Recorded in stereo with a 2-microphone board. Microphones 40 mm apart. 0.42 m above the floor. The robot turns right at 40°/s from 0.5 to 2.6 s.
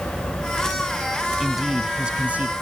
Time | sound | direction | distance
1.4 | a man speaking | straight behind | ?